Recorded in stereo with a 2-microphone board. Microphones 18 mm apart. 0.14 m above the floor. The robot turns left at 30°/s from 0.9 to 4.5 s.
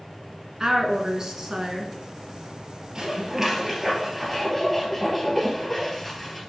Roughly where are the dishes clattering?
Behind right.